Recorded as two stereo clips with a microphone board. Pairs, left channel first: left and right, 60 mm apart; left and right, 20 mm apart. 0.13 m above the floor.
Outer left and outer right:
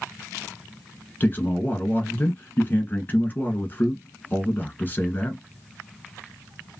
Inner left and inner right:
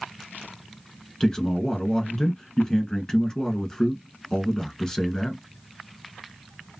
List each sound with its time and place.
1.2 s a man speaking: 30° left (ahead or behind), 1.2 m